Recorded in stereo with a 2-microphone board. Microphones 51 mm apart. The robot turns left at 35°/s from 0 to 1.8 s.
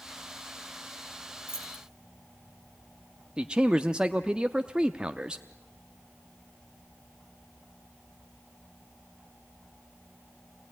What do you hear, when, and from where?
1.5 s keys jangling: 50° left (ahead or behind), 3.5 m; by 1.8 s 40° left (ahead or behind), 3.5 m
3.4 s a man speaking: 20° right (ahead or behind), 0.7 m